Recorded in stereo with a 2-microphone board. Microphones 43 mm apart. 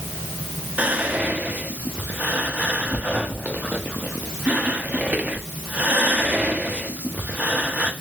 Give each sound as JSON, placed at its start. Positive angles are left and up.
{"t": 0.8, "sound": "whispering", "side_deg": -40, "distance_m": 0.6}